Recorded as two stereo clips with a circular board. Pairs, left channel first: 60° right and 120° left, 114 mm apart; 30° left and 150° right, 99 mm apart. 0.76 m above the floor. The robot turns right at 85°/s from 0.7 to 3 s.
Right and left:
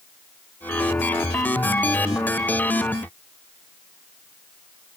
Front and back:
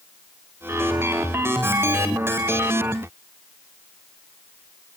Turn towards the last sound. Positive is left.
No sound to turn to.